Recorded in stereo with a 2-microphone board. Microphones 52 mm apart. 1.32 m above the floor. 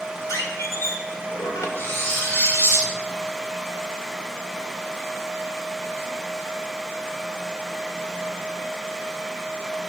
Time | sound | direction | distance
0.3 | a squeak | 70° left (ahead or behind) | 2 m
1.8 | cutlery clinking | 40° left (ahead or behind) | 3.5 m